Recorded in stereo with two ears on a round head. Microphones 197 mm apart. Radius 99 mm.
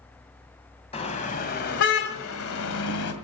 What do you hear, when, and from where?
0.9 s a car horn: 30° left (ahead or behind), 2 m; by 3.1 s 80° left, 1.9 m